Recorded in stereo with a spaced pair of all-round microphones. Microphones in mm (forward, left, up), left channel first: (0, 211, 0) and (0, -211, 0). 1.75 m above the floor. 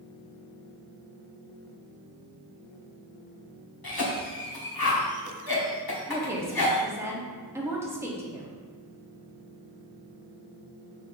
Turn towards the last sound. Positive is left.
turn(degrees=-5)  # may be behind; listen again after turning